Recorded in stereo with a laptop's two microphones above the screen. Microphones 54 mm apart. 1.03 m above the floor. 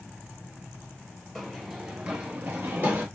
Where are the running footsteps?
Centre (ahead or behind), 1.2 m; by 3.1 s 50° right (ahead or behind), 1.5 m.